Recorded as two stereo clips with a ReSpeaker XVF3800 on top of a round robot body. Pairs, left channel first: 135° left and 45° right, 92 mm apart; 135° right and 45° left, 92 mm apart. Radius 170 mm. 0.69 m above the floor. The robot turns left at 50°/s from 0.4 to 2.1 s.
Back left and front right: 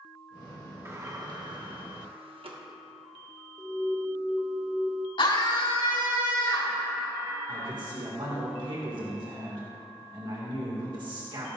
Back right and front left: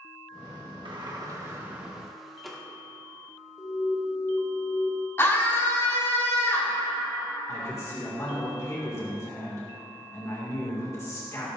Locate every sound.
0.8 s a sliding door: 15° left, 1.7 m; by 2.6 s 45° right, 1.7 m
3.6 s an alarm: 150° right, 1.2 m
5.2 s a scream: 160° left, 4 m
7.5 s a man speaking: 80° right, 2 m